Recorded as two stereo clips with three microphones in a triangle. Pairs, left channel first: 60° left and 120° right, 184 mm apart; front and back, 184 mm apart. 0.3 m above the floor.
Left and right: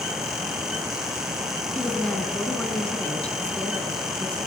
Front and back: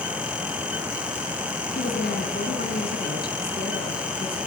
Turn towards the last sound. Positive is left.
turn(degrees=-25)